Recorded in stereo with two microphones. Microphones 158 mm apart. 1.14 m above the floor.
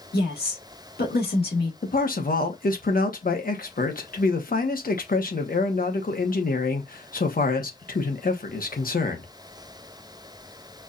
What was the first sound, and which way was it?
A woman speaking, 90° left.